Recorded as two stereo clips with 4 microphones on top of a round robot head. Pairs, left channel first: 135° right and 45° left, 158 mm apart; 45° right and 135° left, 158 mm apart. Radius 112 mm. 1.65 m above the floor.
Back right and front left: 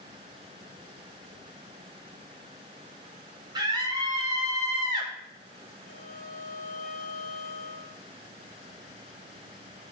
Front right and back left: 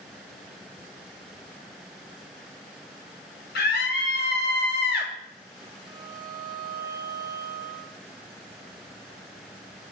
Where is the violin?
160° right, 1.8 m.